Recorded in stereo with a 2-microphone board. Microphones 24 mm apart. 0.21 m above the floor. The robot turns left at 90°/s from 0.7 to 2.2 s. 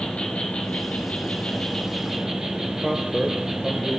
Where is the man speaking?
5° right (ahead or behind), 3.5 m.